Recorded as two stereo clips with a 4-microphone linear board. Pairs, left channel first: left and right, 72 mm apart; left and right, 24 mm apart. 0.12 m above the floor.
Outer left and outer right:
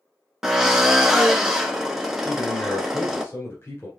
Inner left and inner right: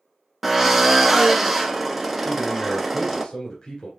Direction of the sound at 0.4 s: 5° right (ahead or behind).